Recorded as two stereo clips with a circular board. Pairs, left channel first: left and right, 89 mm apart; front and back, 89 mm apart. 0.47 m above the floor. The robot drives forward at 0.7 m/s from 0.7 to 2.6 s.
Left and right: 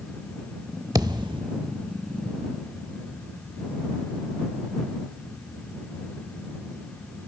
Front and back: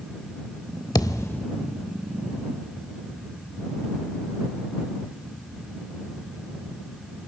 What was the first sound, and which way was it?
A thud, 45° right.